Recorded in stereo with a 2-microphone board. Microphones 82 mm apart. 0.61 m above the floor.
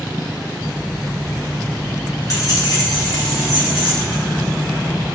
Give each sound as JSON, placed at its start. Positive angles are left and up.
{"t": 0.6, "sound": "keys jangling", "side_deg": -10, "distance_m": 1.2}